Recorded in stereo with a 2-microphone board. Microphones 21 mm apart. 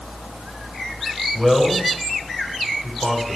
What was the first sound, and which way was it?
A man speaking, 15° right (ahead or behind).